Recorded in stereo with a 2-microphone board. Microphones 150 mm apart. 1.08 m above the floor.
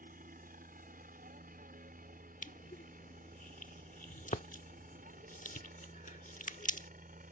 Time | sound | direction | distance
0.0 | a helicopter | 70° right (ahead or behind) | ?
2.4 | crushing | 60° left (ahead or behind) | ?